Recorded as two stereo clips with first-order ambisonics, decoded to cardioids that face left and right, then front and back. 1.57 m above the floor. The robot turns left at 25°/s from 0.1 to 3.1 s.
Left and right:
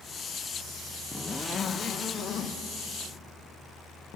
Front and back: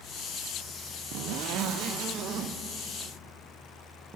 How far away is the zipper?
About 0.5 m.